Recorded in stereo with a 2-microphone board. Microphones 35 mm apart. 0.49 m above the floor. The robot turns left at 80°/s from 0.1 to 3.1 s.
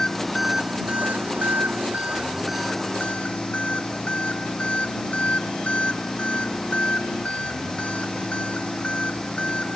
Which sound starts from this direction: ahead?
An engine running, at 0.0 s.